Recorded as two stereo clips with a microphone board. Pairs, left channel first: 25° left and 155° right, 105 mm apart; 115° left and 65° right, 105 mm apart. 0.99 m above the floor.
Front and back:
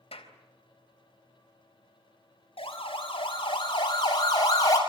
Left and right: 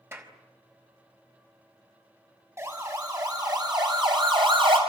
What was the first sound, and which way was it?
A clap, straight ahead.